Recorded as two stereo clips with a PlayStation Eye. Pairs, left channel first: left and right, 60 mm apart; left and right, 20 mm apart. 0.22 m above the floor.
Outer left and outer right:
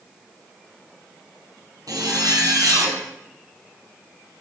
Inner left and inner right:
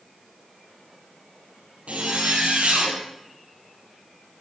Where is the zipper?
80° right, 3.5 m.